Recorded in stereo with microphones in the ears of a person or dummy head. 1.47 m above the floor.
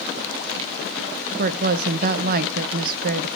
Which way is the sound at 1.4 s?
55° right (ahead or behind).